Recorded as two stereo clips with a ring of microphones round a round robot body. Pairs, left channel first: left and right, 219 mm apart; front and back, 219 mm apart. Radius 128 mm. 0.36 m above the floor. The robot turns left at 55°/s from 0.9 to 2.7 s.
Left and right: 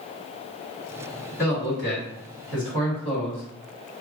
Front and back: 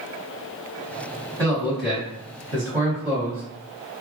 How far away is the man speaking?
About 1.6 m.